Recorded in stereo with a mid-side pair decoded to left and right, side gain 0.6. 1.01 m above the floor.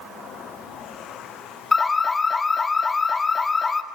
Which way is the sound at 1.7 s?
20° left.